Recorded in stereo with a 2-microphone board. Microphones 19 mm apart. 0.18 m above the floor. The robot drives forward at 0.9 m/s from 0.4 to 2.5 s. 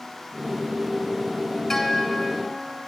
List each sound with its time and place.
1.7 s a guitar: 20° left (ahead or behind), 0.6 m; by 2.8 s 10° left (ahead or behind), 1.3 m